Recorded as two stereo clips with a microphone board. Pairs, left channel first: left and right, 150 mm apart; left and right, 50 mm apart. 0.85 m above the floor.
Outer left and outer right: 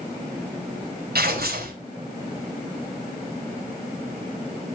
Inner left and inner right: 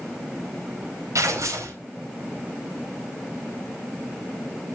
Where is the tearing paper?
80° right, 4.5 m.